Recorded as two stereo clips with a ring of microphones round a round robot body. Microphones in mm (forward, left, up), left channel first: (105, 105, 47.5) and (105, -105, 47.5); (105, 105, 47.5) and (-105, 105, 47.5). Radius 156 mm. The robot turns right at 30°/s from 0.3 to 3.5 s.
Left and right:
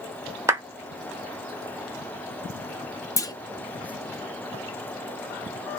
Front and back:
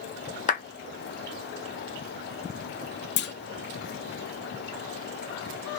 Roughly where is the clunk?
Ahead.